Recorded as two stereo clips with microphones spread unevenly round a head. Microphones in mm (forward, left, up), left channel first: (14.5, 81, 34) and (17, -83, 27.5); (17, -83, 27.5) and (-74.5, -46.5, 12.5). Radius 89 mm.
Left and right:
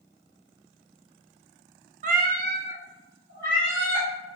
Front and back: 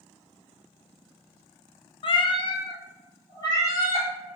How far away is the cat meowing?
About 0.5 m.